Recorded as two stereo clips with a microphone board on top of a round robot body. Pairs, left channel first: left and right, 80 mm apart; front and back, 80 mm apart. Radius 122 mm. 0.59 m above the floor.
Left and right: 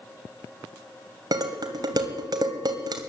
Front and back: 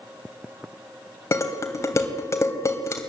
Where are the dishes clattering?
50° right, 2.5 m.